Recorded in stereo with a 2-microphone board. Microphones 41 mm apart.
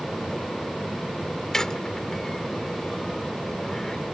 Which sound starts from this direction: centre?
A squeak, at 1.5 s.